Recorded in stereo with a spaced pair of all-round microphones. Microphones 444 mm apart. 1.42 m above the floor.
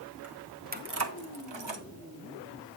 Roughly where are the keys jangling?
Centre.